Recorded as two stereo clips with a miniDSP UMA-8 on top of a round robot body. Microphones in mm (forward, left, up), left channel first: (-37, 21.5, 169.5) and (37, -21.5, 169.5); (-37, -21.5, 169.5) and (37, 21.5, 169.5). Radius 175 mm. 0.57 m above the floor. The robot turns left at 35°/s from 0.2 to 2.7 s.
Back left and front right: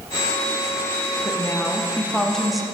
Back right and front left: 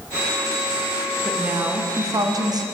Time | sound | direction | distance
1.2 | a woman speaking | 105° left | 1.0 m